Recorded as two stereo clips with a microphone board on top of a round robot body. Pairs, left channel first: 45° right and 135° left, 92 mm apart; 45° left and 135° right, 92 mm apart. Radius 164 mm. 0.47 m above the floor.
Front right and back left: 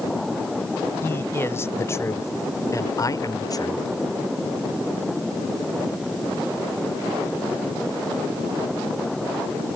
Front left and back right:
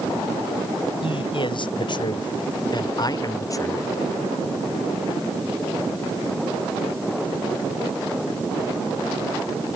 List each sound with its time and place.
1.0 s a man speaking: 20° left; by 3.9 s 10° right